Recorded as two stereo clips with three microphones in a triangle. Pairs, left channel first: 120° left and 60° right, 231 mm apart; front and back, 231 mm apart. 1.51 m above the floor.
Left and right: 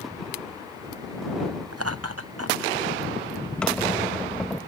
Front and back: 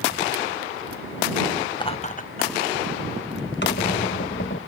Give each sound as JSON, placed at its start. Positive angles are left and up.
{"t": 1.7, "sound": "laughter", "azimuth_deg": -75}
{"t": 3.6, "sound": "a squeak", "azimuth_deg": 35}